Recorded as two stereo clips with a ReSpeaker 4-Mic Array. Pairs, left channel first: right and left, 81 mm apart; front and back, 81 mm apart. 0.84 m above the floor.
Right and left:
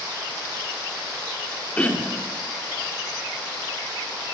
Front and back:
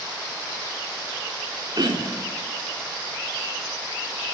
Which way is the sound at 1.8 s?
160° right.